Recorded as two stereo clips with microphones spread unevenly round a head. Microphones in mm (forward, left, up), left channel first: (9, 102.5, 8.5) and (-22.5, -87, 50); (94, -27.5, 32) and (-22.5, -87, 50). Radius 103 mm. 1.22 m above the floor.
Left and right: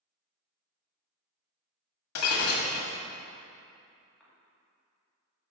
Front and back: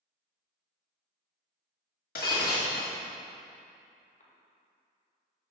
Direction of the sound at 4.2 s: 10° right.